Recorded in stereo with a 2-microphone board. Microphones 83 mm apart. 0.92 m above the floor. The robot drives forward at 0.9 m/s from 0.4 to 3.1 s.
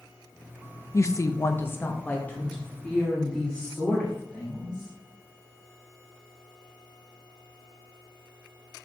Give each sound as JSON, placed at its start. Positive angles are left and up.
{"t": 0.9, "sound": "a woman speaking", "side_deg": 35, "distance_m": 0.6}